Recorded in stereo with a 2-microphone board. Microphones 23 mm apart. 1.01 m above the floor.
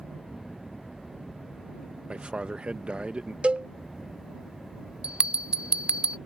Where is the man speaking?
55° right (ahead or behind).